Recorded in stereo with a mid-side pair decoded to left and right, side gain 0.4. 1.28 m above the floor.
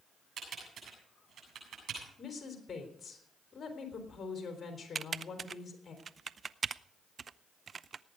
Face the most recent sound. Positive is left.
turn(degrees=-45)